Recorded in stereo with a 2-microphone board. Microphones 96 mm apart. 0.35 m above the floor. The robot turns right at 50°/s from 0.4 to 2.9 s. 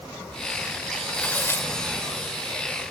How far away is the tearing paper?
About 1.4 m.